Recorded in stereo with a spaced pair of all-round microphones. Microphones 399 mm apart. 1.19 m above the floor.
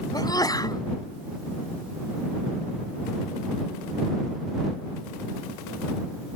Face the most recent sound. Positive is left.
turn(degrees=10)  # may be behind; listen again after turning